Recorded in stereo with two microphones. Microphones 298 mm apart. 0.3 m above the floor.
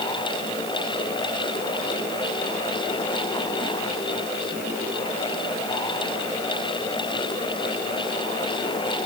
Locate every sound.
Only background noise.